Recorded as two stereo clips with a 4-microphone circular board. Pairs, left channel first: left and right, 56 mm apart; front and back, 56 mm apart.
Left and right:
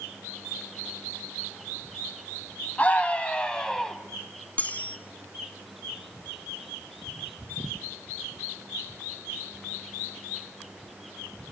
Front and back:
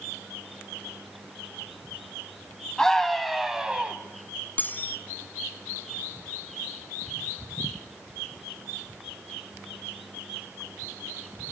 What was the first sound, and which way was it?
A scream, 70° left.